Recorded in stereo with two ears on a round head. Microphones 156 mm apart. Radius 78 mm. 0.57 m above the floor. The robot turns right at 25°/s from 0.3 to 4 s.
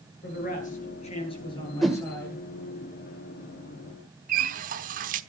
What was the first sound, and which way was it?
A man speaking, 120° left.